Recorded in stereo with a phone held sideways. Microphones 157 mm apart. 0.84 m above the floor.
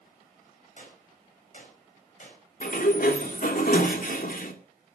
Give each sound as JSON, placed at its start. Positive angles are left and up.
{"t": 0.8, "sound": "a gunshot", "side_deg": 55, "distance_m": 5.5}
{"t": 2.6, "sound": "a sliding door", "side_deg": 65, "distance_m": 2.0}